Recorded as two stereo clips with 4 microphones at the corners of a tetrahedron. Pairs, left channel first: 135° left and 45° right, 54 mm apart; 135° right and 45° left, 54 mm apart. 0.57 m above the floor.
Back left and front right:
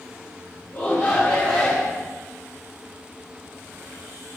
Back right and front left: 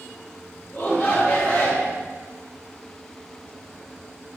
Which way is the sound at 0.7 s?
160° left.